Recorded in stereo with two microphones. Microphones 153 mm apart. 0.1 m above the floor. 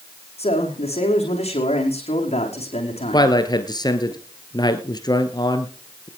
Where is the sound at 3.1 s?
25° left (ahead or behind), 1.6 m.